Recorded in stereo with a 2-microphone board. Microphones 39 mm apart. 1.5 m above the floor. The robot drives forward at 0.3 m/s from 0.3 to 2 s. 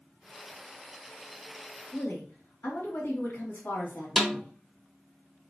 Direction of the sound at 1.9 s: 65° left (ahead or behind).